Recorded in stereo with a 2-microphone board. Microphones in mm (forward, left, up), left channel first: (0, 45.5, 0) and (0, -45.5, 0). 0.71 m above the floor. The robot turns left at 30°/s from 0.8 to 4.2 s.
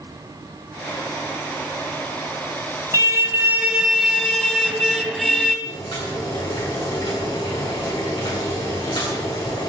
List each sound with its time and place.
2.9 s a car horn: 145° right, 2 m; by 5.5 s 175° left, 2 m
5.7 s boiling: 60° left (ahead or behind), 9.5 m